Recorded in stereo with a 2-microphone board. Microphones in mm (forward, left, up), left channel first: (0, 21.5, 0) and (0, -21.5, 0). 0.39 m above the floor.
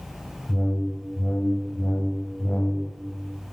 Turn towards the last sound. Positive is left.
turn(degrees=50)  # may be behind; listen again after turning